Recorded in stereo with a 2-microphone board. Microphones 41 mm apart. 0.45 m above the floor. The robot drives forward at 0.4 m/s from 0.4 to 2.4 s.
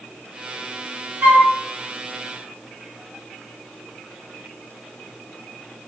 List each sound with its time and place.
1.2 s a flute: 50° right (ahead or behind), 1.9 m